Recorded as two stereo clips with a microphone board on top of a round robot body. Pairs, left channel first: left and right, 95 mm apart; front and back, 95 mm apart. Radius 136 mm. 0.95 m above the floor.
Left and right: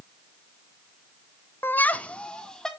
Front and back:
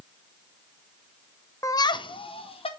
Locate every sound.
1.6 s laughter: 35° left, 0.7 m; by 2.7 s 5° left, 1.9 m